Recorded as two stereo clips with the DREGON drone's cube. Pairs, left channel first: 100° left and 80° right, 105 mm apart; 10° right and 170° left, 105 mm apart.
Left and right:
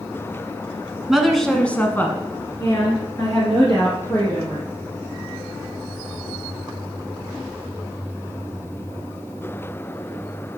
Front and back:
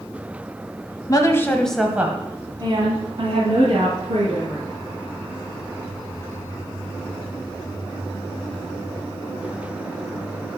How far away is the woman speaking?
About 1.3 m.